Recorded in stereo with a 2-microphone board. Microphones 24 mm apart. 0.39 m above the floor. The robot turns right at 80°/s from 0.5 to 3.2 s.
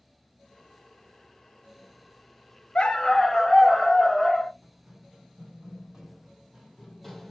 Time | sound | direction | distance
2.8 | a dog barking | 130° left | 0.5 m
4.6 | running footsteps | 30° right (ahead or behind) | 1.9 m